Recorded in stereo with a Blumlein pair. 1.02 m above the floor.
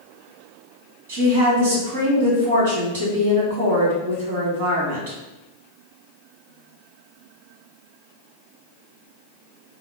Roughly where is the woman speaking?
Ahead right.